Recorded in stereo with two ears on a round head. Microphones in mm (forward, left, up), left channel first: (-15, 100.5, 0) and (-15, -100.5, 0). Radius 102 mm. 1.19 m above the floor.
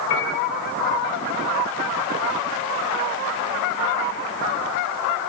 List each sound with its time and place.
0.1 s a piano: 60° left (ahead or behind), 2 m